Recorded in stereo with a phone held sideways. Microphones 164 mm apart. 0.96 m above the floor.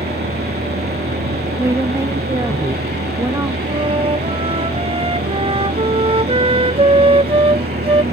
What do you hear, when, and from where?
0.0 s a machine running: 85° right
1.6 s a woman speaking: 20° right (ahead or behind)
3.7 s a flute: 35° right (ahead or behind)